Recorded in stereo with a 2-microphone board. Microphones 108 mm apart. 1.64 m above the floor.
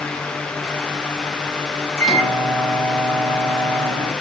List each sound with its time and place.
2.0 s a microwave: centre (ahead or behind), 1.9 m